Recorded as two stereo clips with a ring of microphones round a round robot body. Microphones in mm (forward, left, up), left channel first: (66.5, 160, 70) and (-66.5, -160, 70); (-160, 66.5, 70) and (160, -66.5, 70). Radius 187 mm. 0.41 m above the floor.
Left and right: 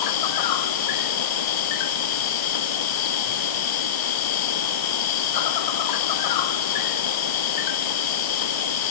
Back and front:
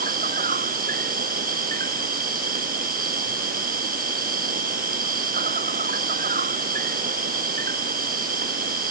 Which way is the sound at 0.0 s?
45° left.